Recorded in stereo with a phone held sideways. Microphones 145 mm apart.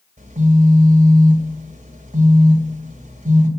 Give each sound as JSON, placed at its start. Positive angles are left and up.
{"t": 0.2, "sound": "a phone buzzing", "side_deg": -55, "distance_m": 2.5}